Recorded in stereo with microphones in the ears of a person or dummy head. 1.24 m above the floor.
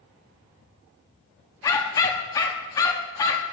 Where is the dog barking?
25° left (ahead or behind), 0.8 m.